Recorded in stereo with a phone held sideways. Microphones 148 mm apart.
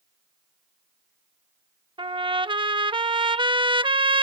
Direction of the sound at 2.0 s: 35° right (ahead or behind).